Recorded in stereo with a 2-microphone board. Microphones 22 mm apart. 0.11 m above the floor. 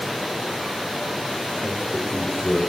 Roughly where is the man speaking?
Right.